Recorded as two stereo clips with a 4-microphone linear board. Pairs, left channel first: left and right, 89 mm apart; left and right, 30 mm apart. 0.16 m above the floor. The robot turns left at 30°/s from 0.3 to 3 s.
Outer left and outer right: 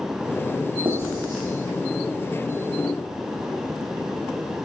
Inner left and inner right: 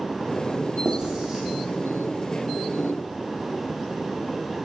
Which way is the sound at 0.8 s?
50° right (ahead or behind).